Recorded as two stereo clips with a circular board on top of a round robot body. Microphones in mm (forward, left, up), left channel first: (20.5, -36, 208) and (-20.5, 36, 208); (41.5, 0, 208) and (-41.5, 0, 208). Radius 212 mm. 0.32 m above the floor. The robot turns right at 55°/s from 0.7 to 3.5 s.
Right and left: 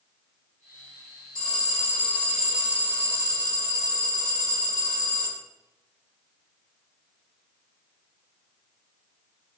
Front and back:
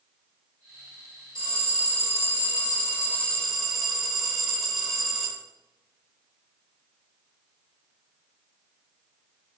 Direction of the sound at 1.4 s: 30° right.